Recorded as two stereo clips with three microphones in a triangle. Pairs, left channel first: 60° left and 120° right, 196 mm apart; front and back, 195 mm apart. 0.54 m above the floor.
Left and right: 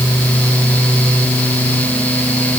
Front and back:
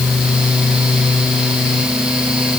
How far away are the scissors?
No scissors in this recording.